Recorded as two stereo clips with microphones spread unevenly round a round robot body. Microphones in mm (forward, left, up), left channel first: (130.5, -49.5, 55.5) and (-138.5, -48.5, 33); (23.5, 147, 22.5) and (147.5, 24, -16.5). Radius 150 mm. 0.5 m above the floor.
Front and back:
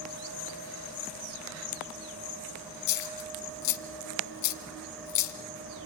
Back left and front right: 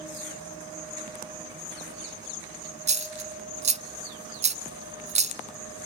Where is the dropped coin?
10° left, 1.0 m.